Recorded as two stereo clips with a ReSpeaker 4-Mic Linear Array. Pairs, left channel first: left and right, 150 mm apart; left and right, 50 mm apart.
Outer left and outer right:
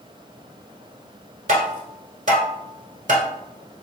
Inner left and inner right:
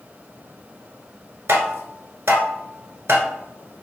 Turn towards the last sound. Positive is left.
turn(degrees=-55)  # may be behind; listen again after turning